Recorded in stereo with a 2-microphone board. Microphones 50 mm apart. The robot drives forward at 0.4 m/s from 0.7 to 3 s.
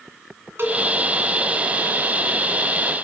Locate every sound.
0.6 s a cowbell: 55° right (ahead or behind), 2.5 m